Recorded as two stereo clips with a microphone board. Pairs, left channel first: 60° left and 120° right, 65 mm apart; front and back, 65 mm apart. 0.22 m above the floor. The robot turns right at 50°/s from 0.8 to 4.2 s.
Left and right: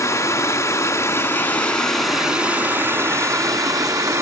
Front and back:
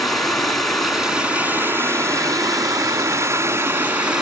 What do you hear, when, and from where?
0.0 s running water: 85° left, 2 m; by 4.2 s 105° right, 2 m